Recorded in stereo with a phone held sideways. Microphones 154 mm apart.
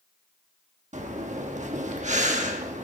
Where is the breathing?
50° right (ahead or behind), 1.1 m.